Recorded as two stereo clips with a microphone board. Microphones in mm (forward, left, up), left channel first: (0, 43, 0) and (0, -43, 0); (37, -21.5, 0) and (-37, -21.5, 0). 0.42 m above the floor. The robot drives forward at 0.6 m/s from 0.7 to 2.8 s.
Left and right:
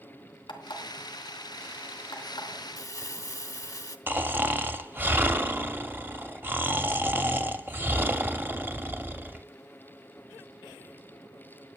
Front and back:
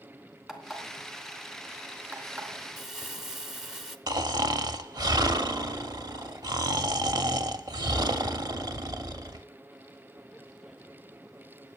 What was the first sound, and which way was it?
An alarm clock, 95° left.